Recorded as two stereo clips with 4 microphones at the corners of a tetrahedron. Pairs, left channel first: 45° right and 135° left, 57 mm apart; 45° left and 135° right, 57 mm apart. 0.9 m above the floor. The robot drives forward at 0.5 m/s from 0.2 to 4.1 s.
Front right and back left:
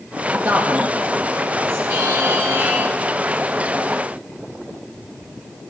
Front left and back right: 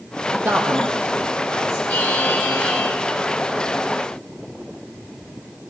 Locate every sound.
0.4 s a man speaking: straight behind, 0.9 m
1.9 s a buzzer: 105° left, 2.5 m; by 2.9 s 115° left, 2.5 m